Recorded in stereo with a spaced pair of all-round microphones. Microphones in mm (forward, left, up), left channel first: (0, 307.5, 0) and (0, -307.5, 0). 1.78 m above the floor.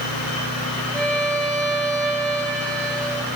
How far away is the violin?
About 5 m.